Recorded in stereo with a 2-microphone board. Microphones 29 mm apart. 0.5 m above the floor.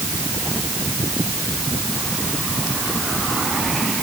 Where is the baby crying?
I don't hear a baby crying.